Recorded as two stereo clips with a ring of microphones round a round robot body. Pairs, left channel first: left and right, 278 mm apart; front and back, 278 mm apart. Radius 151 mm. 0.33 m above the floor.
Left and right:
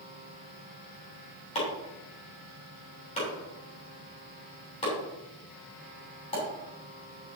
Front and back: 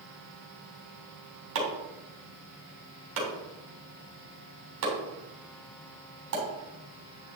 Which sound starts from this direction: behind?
Chopping, at 1.6 s.